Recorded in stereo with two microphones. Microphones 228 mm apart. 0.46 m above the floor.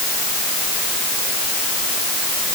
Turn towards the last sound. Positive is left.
No sound to turn to.